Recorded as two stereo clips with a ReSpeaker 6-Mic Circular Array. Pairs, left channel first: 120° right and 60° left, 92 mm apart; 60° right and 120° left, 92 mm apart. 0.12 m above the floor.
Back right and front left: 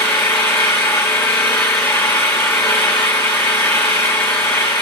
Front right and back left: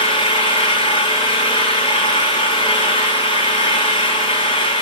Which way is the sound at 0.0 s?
55° right.